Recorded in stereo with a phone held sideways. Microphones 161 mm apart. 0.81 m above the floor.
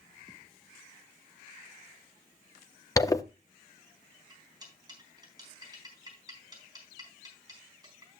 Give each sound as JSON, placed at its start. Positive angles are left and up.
{"t": 3.0, "sound": "a zipper", "side_deg": 20, "distance_m": 0.6}
{"t": 4.3, "sound": "cutlery clinking", "side_deg": -25, "distance_m": 4.0}